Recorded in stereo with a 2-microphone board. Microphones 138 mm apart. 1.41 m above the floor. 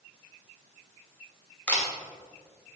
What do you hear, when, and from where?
1.7 s a camera shutter: 10° left (ahead or behind), 2.5 m